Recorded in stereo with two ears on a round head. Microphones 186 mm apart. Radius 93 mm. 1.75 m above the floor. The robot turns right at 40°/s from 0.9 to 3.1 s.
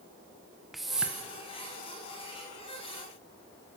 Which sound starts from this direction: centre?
A whoosh, at 0.7 s.